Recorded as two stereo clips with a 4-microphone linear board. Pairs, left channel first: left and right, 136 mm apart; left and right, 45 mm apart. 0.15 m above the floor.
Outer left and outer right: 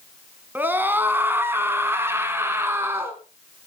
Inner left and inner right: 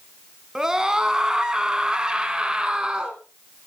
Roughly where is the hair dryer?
No hair dryer in this recording.